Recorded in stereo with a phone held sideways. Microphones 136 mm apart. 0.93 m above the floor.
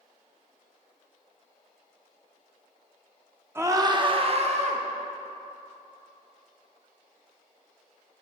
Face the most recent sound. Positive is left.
turn(degrees=-55)  # may be behind; listen again after turning